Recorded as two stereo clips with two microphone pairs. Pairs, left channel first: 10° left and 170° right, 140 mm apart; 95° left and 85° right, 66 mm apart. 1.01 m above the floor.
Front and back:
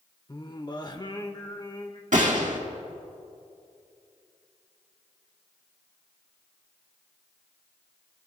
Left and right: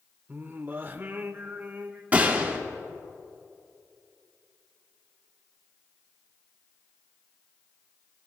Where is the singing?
35° right, 0.9 m.